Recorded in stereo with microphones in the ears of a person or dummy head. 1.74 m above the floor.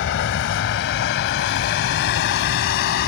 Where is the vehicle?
70° left (ahead or behind); by 3.1 s 60° left (ahead or behind).